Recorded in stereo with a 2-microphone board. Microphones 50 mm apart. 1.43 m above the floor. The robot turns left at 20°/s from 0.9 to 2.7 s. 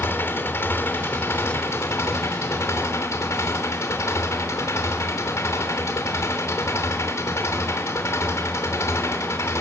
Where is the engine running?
125° left, 3 m; by 9.6 s 90° left, 3 m.